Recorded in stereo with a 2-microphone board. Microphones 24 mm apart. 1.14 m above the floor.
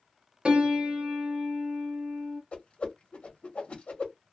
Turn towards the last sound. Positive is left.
turn(degrees=50)  # may be behind; listen again after turning